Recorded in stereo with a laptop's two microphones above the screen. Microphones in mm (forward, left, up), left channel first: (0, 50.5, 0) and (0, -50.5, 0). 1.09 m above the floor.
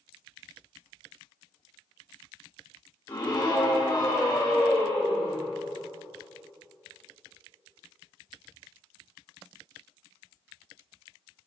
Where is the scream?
50° left (ahead or behind), 3 m; by 5.4 s 55° left (ahead or behind), 5.5 m.